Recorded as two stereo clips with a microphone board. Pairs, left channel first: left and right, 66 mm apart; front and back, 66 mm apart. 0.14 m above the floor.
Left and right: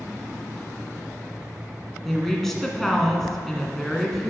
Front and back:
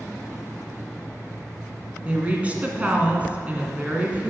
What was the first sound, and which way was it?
A woman speaking, 165° left.